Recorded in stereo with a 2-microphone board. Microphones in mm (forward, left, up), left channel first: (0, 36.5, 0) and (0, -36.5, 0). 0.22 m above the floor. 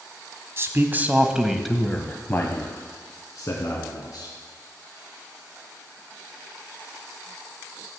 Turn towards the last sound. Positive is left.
turn(degrees=55)  # may be behind; listen again after turning